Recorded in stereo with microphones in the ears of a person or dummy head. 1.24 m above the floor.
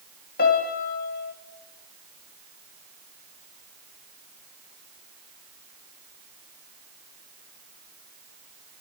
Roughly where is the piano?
Left.